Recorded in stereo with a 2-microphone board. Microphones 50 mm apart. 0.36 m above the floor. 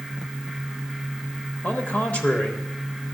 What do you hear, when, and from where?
1.6 s a man speaking: 30° left (ahead or behind), 1.0 m